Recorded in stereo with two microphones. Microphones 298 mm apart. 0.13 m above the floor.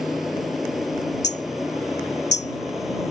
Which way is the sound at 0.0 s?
Centre (ahead or behind).